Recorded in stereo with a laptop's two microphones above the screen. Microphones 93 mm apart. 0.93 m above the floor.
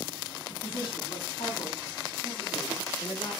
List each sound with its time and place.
0.5 s a woman speaking: 70° left (ahead or behind), 7 m; by 3.3 s 65° left (ahead or behind), 9.5 m